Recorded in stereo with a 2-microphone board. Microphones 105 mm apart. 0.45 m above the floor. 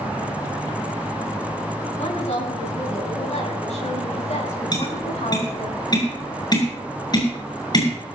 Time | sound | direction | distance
2.0 | a woman speaking | 85° left | 7.5 m
4.7 | tapping | 40° left (ahead or behind) | 6.5 m